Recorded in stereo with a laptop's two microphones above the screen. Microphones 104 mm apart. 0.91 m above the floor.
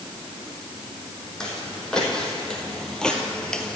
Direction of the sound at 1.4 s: 5° left (ahead or behind).